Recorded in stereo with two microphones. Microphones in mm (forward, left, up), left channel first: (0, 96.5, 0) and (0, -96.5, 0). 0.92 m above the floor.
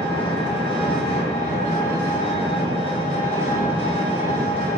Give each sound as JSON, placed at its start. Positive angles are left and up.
{"t": 0.0, "sound": "an engine running", "side_deg": 25, "distance_m": 1.8}